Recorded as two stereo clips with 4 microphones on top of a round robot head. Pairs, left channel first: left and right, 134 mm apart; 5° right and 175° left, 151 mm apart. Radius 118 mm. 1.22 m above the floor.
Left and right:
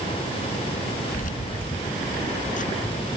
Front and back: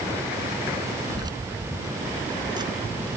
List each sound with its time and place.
1.1 s keys jangling: 110° left; by 3.2 s 115° left